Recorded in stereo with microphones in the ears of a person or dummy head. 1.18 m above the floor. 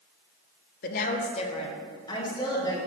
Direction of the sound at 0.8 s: 50° left (ahead or behind).